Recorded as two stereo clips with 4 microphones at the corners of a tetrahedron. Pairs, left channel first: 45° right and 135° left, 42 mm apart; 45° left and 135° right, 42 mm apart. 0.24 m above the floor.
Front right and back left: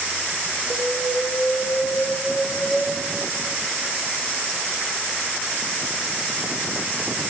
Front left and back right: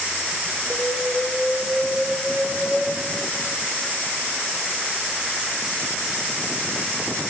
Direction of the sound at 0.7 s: 30° right.